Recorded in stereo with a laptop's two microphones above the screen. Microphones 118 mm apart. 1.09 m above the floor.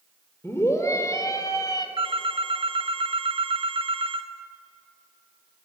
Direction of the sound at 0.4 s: 20° left (ahead or behind).